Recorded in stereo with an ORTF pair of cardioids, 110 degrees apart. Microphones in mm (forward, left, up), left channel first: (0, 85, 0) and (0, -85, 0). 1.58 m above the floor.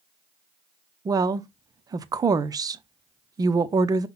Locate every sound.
1.1 s a woman speaking: 20° right, 0.5 m